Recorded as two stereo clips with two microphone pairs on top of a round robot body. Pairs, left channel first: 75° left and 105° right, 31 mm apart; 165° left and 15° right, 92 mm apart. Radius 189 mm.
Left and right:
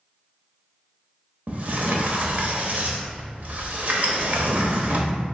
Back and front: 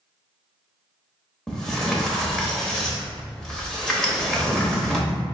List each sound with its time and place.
1.5 s a sliding door: 110° right, 1.1 m